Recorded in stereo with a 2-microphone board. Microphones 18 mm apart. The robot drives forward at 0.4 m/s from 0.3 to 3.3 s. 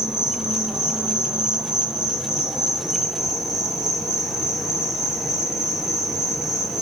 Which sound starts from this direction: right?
An insect, at 0.0 s.